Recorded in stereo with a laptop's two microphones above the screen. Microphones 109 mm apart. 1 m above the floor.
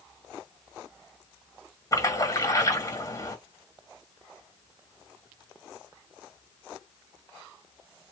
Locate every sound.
1.9 s a splash: 30° left (ahead or behind), 1.9 m